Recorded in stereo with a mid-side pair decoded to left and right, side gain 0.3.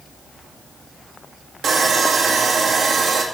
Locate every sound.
1.6 s sawing: 70° right, 2.0 m